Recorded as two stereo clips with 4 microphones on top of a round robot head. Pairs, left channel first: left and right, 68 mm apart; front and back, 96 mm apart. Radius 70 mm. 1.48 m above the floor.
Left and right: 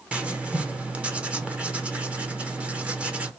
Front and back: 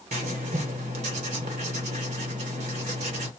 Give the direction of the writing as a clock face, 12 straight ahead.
5 o'clock.